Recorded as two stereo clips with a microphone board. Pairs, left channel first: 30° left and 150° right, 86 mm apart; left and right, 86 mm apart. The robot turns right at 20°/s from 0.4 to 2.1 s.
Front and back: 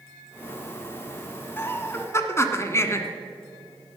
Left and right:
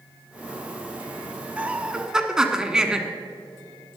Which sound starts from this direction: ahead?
Laughter, at 1.6 s.